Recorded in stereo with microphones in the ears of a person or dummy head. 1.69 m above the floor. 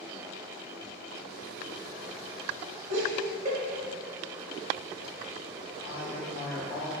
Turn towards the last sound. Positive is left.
turn(degrees=55)  # may be behind; listen again after turning